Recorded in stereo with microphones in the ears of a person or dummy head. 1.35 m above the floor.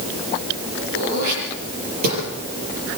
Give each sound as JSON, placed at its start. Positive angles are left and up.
{"t": 0.9, "sound": "throat clearing", "side_deg": -50, "distance_m": 7.5}